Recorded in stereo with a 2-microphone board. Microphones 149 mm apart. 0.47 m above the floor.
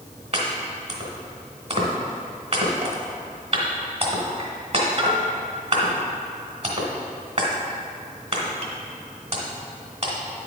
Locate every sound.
0.3 s chopping: 45° right (ahead or behind), 1.5 m